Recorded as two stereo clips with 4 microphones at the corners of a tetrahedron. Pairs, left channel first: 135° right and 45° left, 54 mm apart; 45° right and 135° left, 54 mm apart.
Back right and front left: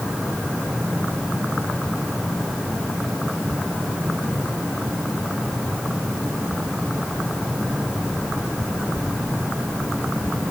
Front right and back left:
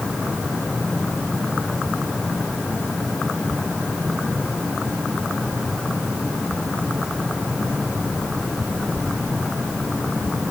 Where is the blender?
I don't hear a blender.